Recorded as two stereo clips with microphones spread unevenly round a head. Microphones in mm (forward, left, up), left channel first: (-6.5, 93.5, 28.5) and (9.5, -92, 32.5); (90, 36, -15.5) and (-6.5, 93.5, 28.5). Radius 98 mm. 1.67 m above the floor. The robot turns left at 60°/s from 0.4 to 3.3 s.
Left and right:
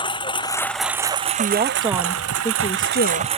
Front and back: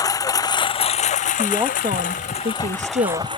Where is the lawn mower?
30° left; by 3.4 s 145° right.